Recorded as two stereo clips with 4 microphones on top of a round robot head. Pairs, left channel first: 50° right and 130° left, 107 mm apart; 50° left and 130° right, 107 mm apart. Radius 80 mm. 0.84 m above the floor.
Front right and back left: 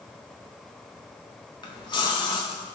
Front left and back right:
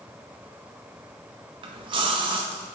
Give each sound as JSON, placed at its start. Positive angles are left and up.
{"t": 1.6, "sound": "a splash", "azimuth_deg": -95, "distance_m": 0.5}